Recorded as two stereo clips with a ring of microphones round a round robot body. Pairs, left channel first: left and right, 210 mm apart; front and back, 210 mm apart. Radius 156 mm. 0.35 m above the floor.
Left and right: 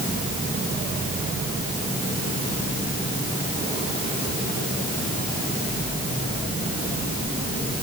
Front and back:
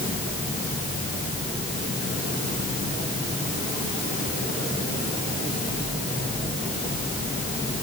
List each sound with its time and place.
Only background noise.